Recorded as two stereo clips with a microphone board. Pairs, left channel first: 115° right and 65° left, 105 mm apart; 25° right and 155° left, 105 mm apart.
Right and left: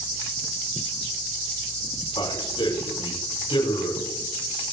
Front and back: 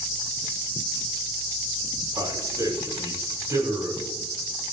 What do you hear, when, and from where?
2.2 s a man speaking: 145° right, 6.5 m